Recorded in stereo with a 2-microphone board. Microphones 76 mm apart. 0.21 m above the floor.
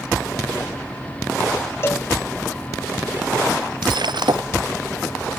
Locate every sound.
1.8 s a cowbell: 35° left (ahead or behind)
3.8 s breaking glass: 80° right